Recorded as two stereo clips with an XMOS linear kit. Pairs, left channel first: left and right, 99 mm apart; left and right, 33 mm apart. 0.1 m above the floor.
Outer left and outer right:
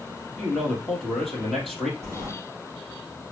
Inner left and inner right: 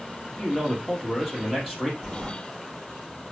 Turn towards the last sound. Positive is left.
turn(degrees=0)  # may be behind; listen again after turning